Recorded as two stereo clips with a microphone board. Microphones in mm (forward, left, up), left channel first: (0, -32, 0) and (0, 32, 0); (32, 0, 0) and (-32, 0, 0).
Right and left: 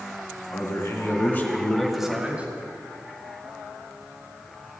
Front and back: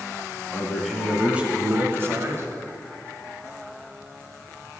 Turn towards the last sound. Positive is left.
turn(degrees=150)